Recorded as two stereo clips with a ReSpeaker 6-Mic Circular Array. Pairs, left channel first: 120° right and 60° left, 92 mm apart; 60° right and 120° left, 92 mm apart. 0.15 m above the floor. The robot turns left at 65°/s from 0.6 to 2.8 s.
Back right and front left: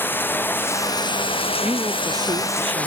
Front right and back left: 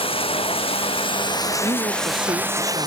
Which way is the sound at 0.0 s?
50° right.